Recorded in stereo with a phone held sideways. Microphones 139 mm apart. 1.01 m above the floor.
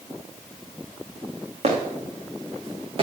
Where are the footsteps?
50° right (ahead or behind), 3.5 m; by 3.0 s 40° right (ahead or behind), 4 m.